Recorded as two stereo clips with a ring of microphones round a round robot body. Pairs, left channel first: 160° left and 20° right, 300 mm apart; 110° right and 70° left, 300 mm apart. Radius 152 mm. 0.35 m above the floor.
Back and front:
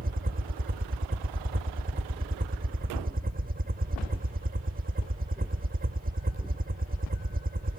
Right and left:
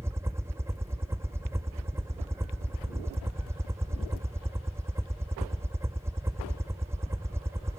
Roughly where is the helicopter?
Ahead.